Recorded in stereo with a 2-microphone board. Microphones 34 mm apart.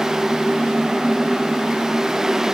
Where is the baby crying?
No baby crying in this recording.